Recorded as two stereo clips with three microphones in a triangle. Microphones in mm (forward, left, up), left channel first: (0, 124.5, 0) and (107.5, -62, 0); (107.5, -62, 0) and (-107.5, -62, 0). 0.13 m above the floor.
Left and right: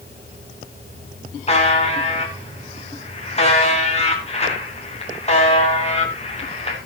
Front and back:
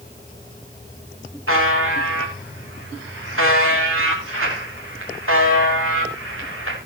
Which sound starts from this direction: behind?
A buzzer, at 1.5 s.